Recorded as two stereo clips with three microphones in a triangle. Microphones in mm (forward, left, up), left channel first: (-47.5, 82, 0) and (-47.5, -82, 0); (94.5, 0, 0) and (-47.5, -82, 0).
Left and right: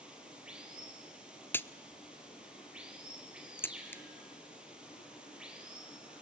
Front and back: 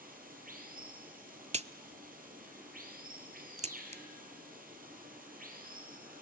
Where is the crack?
170° left, 0.6 m.